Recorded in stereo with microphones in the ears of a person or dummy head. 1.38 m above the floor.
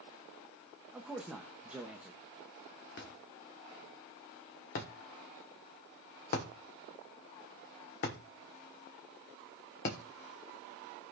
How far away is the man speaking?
About 0.9 m.